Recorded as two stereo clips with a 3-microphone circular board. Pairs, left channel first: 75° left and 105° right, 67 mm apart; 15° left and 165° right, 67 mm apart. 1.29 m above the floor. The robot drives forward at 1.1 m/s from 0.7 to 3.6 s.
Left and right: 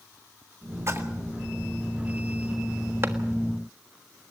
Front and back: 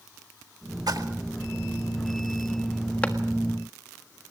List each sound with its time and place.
0.9 s a splash: 150° right, 1.8 m; by 1.1 s 155° right, 2.0 m
3.0 s a clap: 55° right, 1.5 m; by 3.1 s 60° right, 1.5 m